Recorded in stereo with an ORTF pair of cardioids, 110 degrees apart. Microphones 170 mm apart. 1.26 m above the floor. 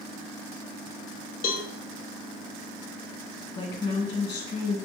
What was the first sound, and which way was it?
A cowbell, 55° left.